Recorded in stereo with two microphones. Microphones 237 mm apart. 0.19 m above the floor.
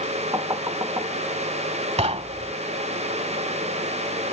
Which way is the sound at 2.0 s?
25° right (ahead or behind).